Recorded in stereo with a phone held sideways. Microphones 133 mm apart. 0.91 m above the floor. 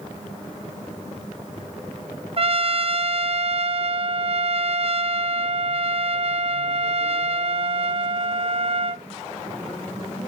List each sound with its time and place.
2.4 s a trumpet: 50° right (ahead or behind), 0.7 m